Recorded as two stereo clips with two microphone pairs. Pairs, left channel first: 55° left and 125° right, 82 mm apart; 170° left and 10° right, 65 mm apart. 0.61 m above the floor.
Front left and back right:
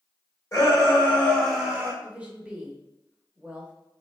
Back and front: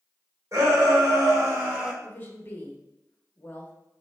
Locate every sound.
0.5 s a shout: 5° left, 1.6 m; by 1.9 s 75° right, 0.9 m
2.0 s a woman speaking: 175° left, 0.7 m